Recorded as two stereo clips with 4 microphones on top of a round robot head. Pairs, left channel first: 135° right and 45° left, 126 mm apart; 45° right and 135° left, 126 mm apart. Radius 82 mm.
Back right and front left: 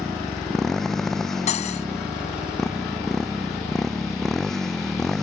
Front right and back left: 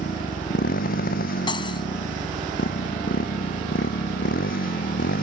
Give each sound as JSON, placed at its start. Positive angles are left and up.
{"t": 0.0, "sound": "a motorcycle", "azimuth_deg": -50}
{"t": 1.5, "sound": "cutlery clinking", "azimuth_deg": -100}